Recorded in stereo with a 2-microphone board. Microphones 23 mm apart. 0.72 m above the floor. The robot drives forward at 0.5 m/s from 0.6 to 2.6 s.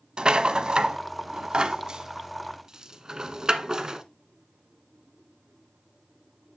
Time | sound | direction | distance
0.2 | a rattle | 45° right (ahead or behind) | 0.7 m